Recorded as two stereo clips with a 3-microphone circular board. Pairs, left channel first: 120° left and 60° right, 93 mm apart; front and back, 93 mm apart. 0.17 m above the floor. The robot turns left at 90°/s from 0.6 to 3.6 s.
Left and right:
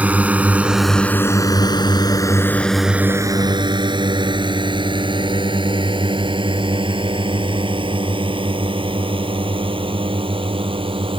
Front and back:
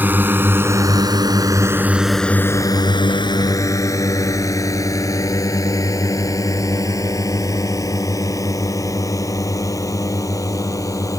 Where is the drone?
125° right; by 11.2 s 50° right.